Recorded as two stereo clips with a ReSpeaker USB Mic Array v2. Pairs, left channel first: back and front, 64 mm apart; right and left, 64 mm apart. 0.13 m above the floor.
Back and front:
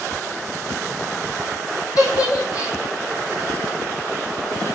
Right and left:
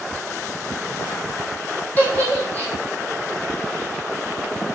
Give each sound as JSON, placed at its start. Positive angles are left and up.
{"t": 2.0, "sound": "a giggle", "azimuth_deg": -155, "distance_m": 2.5}